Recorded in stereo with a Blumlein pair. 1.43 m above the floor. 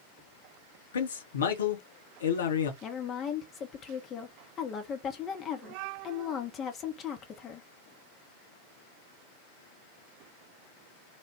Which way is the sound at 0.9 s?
65° left.